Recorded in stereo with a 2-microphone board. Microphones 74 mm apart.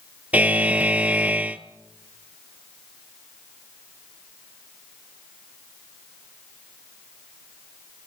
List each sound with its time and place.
0.3 s a buzzer: 20° right (ahead or behind), 0.9 m